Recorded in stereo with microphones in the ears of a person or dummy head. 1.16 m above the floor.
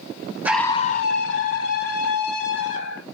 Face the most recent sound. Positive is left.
turn(degrees=85)